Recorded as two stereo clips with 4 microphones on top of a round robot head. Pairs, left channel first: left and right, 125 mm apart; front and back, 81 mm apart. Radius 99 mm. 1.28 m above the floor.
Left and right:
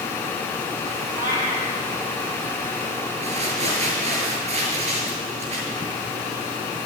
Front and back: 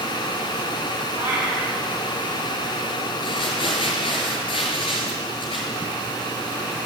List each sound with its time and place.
1.1 s a cat meowing: 105° right, 9 m
3.2 s crumpling: 40° right, 5 m